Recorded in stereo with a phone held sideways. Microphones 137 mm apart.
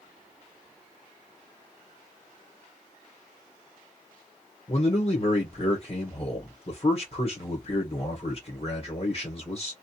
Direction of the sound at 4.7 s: 40° left (ahead or behind).